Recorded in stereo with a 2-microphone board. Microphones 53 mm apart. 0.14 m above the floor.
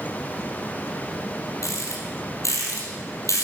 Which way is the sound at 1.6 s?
70° left (ahead or behind).